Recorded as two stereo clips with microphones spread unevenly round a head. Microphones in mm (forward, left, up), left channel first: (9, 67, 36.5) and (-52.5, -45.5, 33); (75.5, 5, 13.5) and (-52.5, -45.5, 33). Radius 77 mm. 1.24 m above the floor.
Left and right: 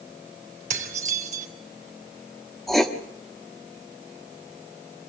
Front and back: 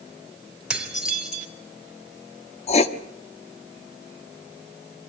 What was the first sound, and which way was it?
Dishes clattering, 75° right.